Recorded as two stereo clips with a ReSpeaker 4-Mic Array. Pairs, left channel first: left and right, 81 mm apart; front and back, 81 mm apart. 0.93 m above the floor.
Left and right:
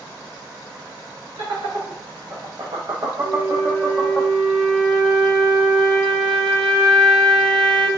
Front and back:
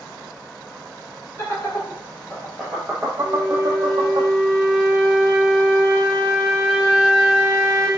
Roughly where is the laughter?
Ahead right.